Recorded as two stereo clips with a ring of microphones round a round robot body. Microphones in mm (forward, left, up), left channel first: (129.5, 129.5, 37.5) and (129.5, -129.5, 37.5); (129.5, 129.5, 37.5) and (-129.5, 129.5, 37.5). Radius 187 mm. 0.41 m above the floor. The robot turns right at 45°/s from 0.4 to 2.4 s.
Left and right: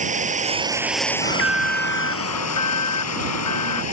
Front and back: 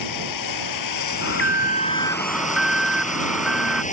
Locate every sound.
0.0 s running water: 25° right; by 3.9 s 65° left
1.2 s an alarm: 35° left; by 3.8 s 90° left